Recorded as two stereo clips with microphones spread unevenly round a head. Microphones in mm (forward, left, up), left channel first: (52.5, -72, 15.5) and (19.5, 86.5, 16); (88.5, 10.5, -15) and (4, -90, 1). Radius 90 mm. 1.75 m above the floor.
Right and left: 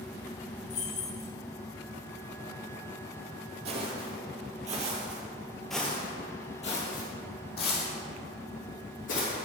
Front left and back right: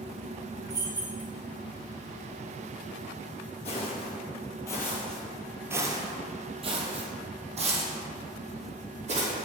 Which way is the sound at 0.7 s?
70° right.